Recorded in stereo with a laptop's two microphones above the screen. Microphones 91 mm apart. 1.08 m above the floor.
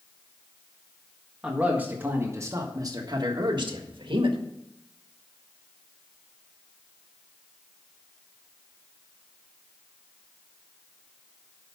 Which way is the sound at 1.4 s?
10° right (ahead or behind).